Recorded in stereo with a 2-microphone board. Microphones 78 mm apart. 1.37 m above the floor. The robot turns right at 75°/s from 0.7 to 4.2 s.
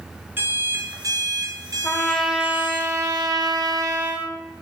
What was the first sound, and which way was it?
An alarm clock, 145° right.